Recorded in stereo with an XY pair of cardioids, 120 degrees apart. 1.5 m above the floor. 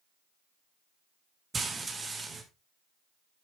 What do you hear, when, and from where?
1.5 s frying: 25° right, 2.5 m